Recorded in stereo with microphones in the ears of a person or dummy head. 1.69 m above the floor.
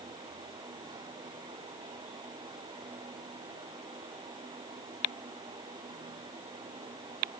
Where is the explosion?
I don't hear an explosion.